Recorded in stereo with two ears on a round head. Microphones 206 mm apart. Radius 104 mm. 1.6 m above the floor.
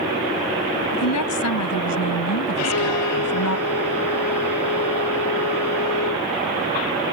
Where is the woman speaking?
80° left; by 3.6 s 70° left (ahead or behind).